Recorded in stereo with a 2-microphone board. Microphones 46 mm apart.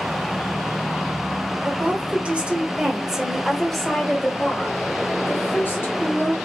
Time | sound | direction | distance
1.6 | a woman speaking | 40° right (ahead or behind) | 1.4 m